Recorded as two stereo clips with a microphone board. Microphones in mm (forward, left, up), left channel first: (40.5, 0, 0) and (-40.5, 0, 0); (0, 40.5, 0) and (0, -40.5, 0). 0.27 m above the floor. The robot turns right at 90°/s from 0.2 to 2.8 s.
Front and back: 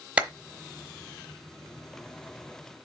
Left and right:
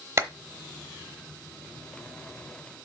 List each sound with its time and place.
0.2 s a clap: 115° right, 0.9 m; by 0.3 s 105° right, 0.9 m